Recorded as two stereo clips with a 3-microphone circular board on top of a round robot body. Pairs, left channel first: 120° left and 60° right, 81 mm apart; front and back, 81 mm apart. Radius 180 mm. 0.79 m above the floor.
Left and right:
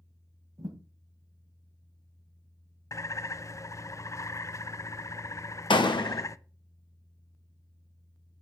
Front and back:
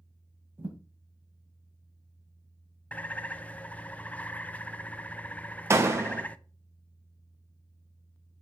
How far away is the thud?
About 1.9 m.